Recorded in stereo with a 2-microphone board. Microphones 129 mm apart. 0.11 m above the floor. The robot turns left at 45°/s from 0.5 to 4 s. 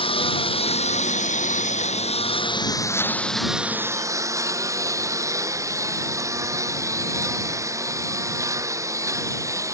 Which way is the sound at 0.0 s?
50° left (ahead or behind).